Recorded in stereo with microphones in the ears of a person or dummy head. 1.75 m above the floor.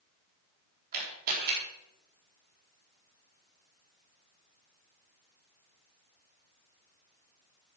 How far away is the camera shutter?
About 4 m.